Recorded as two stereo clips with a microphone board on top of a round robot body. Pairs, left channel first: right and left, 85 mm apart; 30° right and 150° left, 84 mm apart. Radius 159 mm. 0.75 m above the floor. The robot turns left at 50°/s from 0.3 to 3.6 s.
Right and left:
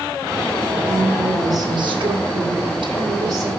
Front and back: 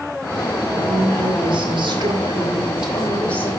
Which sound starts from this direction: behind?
A woman speaking, at 0.7 s.